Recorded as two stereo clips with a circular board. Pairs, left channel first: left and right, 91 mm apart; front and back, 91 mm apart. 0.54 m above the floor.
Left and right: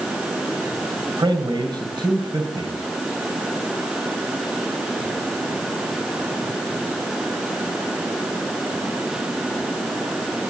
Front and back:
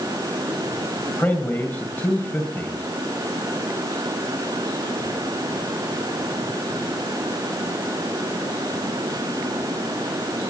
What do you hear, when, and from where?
1.2 s a man speaking: 70° right, 2 m